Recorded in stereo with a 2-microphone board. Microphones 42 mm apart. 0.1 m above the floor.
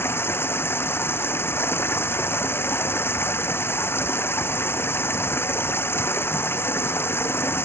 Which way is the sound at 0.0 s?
75° left (ahead or behind).